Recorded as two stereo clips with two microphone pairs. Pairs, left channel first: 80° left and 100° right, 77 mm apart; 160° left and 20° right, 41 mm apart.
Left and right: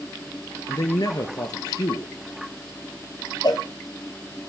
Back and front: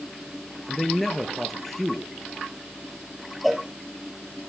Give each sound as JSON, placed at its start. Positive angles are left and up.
{"t": 0.7, "sound": "a man speaking", "azimuth_deg": 75, "distance_m": 1.9}
{"t": 3.4, "sound": "a cowbell", "azimuth_deg": 70, "distance_m": 1.4}